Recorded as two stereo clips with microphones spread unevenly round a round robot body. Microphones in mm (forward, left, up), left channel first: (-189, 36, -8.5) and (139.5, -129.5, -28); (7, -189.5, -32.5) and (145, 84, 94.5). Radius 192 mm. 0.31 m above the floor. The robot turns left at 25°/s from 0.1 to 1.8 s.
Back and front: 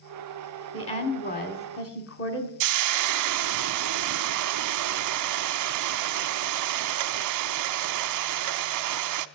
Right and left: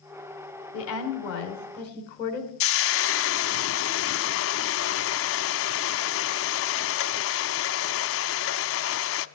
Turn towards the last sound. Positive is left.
turn(degrees=-70)